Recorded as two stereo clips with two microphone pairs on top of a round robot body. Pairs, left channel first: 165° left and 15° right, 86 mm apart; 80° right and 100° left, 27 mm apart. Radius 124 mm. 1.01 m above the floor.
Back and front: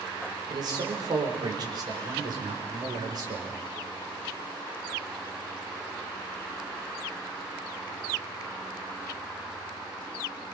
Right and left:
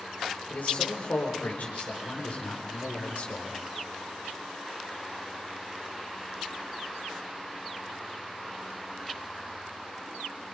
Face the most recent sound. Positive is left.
turn(degrees=-55)